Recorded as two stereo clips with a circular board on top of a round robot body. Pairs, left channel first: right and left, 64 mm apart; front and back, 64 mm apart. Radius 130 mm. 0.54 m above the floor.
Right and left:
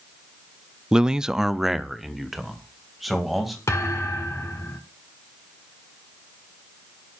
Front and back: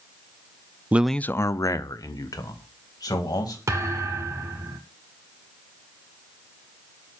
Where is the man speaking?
155° left, 0.6 m; by 3.6 s straight ahead, 3.5 m.